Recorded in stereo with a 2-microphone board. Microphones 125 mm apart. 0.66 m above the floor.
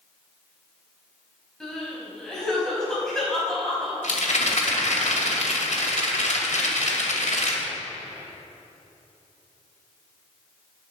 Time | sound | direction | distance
1.6 | crying | 5° left (ahead or behind) | 5 m
4.0 | a rattle | 75° left (ahead or behind) | 2.5 m